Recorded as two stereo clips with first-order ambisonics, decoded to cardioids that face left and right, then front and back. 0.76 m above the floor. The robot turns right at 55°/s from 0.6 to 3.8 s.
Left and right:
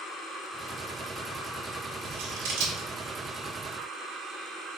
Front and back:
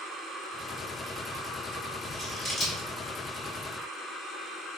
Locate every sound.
2.0 s scissors: 100° right, 1.2 m; by 2.9 s 55° right, 1.2 m